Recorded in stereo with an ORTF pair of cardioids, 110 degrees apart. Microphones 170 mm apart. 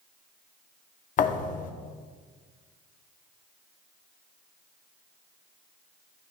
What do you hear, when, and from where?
1.2 s a thud: 50° left, 1.1 m